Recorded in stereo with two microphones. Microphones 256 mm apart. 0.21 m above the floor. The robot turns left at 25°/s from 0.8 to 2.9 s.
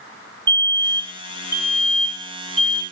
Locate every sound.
0.5 s a fire alarm: 105° right, 3 m; by 2.8 s 155° right, 3 m